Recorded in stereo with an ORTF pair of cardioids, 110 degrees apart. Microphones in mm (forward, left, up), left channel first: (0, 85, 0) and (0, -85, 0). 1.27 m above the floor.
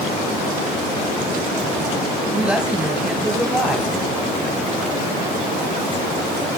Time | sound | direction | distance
2.3 | a woman speaking | 5° right | 9 m